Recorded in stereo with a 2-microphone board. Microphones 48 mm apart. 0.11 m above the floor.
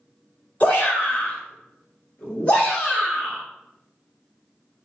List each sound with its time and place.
0.6 s a shout: 30° left (ahead or behind), 1.9 m; by 3.4 s 20° left (ahead or behind), 2.5 m